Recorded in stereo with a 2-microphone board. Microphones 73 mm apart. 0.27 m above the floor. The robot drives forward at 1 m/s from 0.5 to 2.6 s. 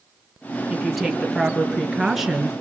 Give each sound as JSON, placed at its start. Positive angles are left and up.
{"t": 0.7, "sound": "a woman speaking", "side_deg": 0, "distance_m": 5.0}